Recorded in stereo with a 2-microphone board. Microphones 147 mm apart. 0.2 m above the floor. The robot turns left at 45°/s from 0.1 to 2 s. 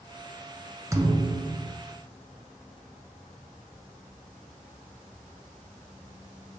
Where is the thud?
25° right, 0.7 m; by 1.8 s 60° right, 0.7 m.